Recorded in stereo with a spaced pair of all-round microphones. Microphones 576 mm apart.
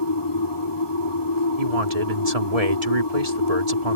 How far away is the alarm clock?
I don't hear an alarm clock.